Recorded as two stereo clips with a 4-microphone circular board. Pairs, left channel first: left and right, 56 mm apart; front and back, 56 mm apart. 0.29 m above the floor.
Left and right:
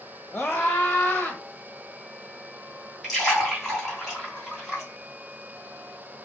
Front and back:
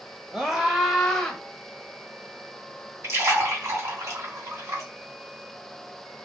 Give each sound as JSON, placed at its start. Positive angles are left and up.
{"t": 0.3, "sound": "a scream", "azimuth_deg": 130, "distance_m": 1.4}
{"t": 3.0, "sound": "a splash", "azimuth_deg": 175, "distance_m": 2.5}